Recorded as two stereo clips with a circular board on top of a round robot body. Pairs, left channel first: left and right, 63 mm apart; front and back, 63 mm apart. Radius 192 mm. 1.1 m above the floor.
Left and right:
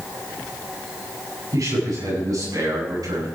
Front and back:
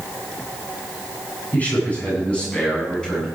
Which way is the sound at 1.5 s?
65° right.